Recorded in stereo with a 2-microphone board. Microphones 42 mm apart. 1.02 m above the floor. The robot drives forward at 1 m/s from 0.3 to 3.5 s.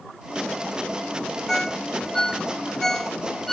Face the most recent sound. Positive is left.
turn(degrees=5)  # may be behind; listen again after turning